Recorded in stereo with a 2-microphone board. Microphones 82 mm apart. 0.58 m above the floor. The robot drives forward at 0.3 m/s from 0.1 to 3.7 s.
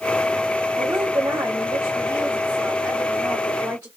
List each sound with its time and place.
0.8 s a woman speaking: 50° right (ahead or behind), 1.0 m; by 3.9 s 30° right (ahead or behind), 1.4 m